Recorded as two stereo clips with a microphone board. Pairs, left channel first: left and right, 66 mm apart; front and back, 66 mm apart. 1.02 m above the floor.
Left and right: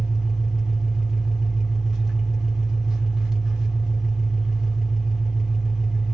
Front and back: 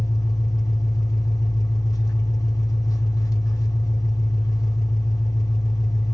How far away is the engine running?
About 1.2 m.